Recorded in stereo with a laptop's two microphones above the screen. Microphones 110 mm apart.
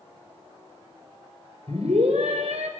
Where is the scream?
75° right (ahead or behind), 4.5 m; by 2.7 s 80° right, 5.5 m.